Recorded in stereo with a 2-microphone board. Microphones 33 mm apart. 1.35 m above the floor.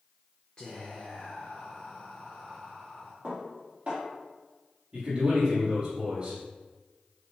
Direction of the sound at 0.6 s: 30° left (ahead or behind).